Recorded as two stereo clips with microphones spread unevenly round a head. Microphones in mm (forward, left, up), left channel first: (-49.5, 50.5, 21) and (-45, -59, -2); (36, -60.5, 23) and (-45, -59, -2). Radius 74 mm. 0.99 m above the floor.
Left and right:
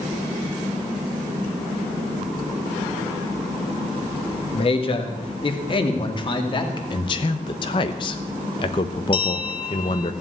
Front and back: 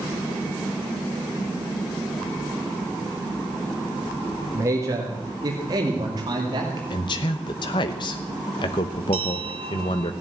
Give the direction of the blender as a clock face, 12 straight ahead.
No blender in this recording.